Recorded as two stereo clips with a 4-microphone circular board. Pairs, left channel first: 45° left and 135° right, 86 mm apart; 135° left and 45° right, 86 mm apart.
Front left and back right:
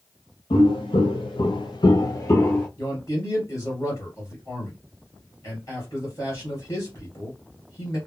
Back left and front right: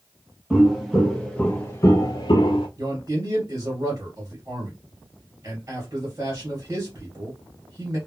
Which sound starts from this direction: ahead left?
Footsteps, at 0.5 s.